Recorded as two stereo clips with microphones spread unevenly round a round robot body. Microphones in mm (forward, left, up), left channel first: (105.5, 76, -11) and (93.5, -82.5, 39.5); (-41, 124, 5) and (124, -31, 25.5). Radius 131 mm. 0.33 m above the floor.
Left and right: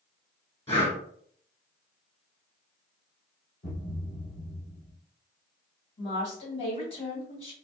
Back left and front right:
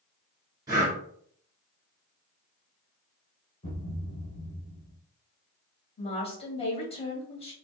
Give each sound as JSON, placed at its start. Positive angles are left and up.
{"t": 0.7, "sound": "breathing", "azimuth_deg": 30, "distance_m": 1.9}
{"t": 3.6, "sound": "a thud", "azimuth_deg": 70, "distance_m": 1.7}
{"t": 6.0, "sound": "a woman speaking", "azimuth_deg": 85, "distance_m": 1.8}